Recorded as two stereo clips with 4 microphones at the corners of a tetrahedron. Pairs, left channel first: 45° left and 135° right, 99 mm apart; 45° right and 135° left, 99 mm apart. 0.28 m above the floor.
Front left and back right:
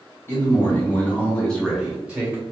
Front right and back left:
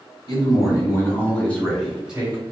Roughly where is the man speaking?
Ahead.